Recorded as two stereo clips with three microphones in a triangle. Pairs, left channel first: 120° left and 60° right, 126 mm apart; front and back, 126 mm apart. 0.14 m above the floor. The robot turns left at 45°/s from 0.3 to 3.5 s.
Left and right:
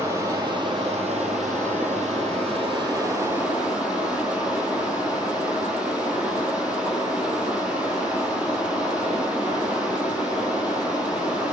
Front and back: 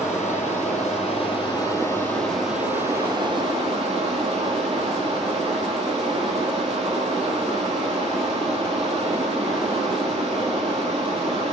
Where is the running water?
5° left, 2.5 m; by 11.6 s 140° right, 2.5 m.